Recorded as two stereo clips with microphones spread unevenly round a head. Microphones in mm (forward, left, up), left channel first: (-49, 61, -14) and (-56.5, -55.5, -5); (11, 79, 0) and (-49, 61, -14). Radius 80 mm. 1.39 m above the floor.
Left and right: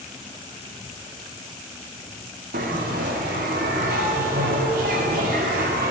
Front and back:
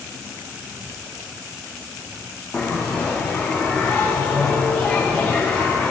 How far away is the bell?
About 0.9 m.